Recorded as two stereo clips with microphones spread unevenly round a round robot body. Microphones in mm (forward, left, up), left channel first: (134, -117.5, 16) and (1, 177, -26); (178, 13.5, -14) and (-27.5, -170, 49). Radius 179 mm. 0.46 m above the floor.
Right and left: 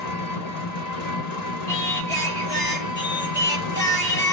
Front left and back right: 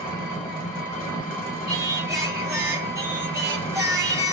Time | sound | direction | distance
0.0 | an engine running | 35° right | 1.5 m
1.7 | singing | 45° right | 1.2 m